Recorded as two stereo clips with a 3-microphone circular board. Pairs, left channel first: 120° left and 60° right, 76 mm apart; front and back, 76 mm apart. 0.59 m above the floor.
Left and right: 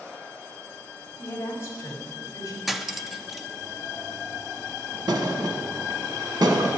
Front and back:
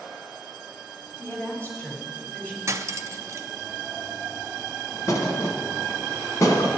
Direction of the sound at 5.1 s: 40° right.